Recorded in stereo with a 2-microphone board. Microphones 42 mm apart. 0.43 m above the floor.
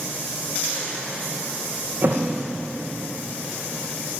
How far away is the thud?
About 3.5 m.